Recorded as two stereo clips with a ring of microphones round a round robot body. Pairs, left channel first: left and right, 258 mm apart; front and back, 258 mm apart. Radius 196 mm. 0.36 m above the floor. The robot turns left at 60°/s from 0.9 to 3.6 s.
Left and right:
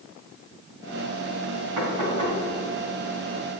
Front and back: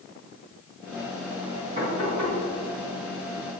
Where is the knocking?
115° right, 4 m; by 2.4 s 150° right, 4 m.